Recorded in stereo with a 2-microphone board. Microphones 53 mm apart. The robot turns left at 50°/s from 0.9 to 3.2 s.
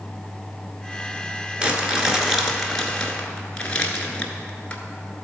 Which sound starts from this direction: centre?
Crumpling, at 1.6 s.